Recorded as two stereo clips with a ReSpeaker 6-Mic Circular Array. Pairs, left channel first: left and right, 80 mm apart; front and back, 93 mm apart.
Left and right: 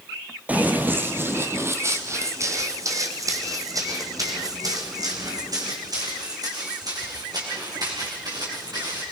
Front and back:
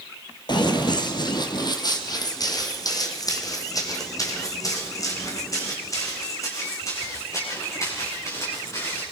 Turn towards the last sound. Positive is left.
turn(degrees=-55)